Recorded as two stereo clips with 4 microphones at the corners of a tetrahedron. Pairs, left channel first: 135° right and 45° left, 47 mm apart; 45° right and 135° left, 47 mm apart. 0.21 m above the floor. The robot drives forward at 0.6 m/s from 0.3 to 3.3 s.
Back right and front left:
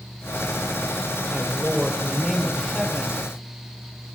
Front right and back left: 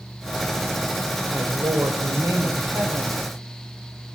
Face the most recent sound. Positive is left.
turn(degrees=135)